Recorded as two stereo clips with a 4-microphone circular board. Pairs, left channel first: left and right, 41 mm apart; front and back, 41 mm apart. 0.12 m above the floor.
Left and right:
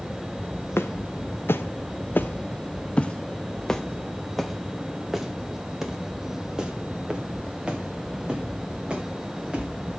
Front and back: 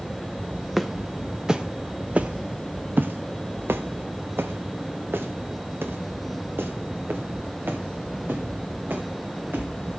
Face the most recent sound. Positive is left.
turn(degrees=-155)